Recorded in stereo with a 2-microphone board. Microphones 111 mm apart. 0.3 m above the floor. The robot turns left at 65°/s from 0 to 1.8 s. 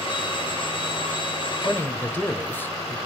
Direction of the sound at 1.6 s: 15° left (ahead or behind).